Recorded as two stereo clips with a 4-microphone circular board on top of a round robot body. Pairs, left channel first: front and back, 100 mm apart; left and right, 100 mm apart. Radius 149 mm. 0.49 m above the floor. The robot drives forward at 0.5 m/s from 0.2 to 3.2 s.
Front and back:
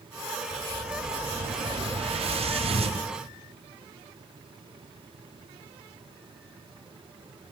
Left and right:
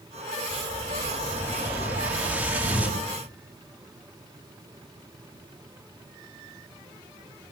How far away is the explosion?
About 4.5 m.